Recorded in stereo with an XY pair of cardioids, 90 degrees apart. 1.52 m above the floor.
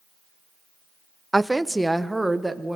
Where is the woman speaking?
10° right, 0.6 m; by 2.8 s 5° right, 1.9 m.